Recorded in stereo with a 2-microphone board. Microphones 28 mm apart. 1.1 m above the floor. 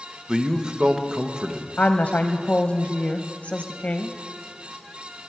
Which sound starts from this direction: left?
A woman speaking, at 1.8 s.